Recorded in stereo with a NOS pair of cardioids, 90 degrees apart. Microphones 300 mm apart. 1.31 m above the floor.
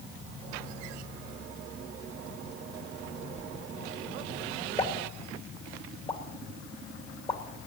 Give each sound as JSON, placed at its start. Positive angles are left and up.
{"t": 3.4, "sound": "a whoosh", "azimuth_deg": 25, "distance_m": 0.8}
{"t": 4.8, "sound": "a pop", "azimuth_deg": 20, "distance_m": 2.0}